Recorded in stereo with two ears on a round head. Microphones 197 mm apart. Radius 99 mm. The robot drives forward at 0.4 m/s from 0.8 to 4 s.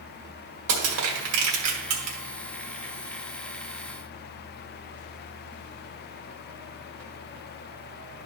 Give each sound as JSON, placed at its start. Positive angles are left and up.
{"t": 0.7, "sound": "crushing", "side_deg": -75, "distance_m": 2.0}